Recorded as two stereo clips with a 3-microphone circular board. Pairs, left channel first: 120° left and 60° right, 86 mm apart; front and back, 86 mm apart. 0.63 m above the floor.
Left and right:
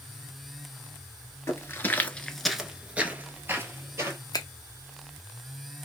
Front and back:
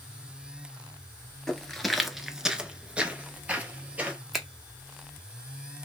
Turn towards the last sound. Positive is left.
turn(degrees=95)